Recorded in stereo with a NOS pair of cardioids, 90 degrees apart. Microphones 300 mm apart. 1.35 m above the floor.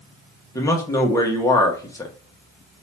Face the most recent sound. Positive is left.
turn(degrees=10)